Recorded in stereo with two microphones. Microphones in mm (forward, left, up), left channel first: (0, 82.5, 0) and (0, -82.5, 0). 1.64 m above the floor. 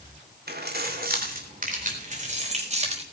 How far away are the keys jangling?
About 3 m.